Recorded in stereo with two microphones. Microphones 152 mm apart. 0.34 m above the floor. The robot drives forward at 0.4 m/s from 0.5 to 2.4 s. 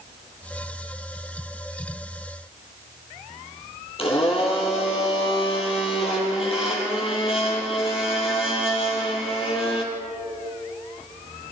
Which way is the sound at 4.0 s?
40° left (ahead or behind).